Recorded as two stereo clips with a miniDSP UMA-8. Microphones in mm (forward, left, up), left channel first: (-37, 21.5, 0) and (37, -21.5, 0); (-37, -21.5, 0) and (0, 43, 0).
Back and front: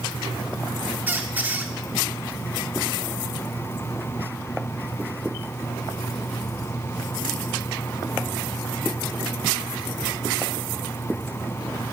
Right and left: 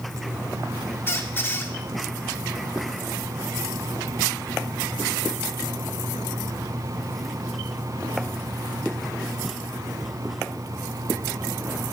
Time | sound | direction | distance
1.1 | a squeak | 85° right | 1.1 m